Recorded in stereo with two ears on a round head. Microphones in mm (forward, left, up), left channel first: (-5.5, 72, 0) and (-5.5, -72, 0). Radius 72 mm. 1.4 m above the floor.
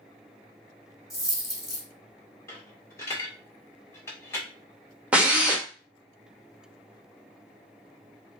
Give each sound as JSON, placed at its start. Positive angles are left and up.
{"t": 1.1, "sound": "a dropped coin", "side_deg": 0, "distance_m": 2.5}
{"t": 2.5, "sound": "a dropped coin", "side_deg": 15, "distance_m": 1.8}
{"t": 5.1, "sound": "a drill", "side_deg": -10, "distance_m": 1.0}